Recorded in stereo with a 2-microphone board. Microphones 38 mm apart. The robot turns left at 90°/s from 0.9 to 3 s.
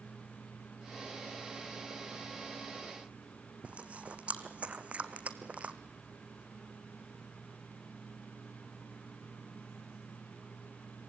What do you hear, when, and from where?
3.6 s chewing: 35° right (ahead or behind), 1.3 m